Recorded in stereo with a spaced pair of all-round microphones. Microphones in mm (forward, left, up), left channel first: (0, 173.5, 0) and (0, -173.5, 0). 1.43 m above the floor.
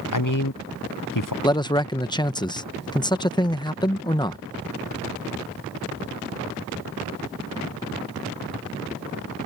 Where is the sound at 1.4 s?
10° left (ahead or behind).